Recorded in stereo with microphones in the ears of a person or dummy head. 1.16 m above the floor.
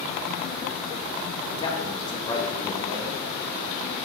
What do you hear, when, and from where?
1.5 s a man speaking: 20° left (ahead or behind), 1.0 m